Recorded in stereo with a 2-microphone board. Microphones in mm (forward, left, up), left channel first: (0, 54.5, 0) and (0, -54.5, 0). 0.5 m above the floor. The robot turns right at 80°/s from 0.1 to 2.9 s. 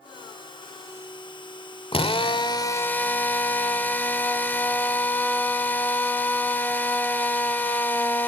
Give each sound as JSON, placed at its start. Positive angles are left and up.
{"t": 1.9, "sound": "a drill", "azimuth_deg": 80, "distance_m": 1.4}